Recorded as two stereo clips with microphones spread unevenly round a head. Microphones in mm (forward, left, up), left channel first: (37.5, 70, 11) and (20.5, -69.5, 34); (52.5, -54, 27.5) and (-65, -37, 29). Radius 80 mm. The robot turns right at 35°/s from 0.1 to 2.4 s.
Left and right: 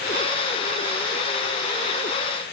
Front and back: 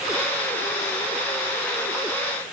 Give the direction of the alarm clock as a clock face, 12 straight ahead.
I don't hear an alarm clock.